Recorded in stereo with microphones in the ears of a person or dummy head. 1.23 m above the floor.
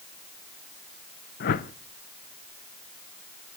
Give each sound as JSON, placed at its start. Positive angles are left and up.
{"t": 1.4, "sound": "a whoosh", "side_deg": 50, "distance_m": 0.7}